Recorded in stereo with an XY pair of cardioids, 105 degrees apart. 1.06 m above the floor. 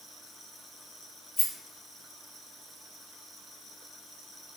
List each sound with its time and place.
1.4 s a rattle: 35° left, 0.8 m